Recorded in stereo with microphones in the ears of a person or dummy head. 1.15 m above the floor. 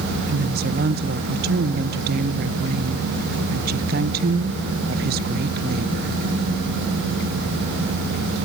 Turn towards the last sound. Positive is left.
turn(degrees=-55)  # may be behind; listen again after turning